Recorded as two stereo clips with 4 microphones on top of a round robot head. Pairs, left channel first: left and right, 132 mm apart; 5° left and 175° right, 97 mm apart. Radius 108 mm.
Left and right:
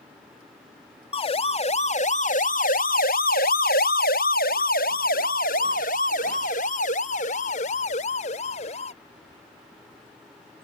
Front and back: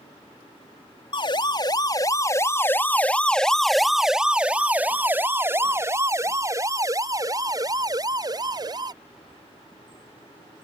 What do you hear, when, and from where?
1.1 s a siren: 40° left; by 8.9 s 140° left